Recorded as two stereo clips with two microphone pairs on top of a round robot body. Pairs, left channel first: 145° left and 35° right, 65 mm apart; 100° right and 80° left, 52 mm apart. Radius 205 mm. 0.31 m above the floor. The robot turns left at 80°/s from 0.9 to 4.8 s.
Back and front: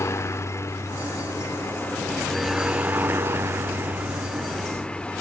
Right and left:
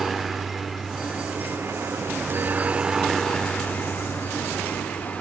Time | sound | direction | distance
0.0 | a helicopter | 170° left | ?